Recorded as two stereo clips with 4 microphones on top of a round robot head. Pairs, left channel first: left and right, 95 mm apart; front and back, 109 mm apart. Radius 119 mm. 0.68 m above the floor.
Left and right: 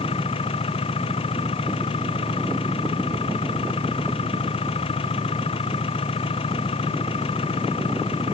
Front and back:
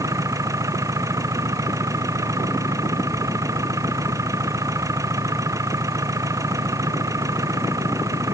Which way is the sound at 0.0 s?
120° left.